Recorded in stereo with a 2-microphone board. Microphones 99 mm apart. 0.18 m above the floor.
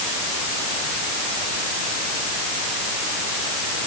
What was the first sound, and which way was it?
Only background noise.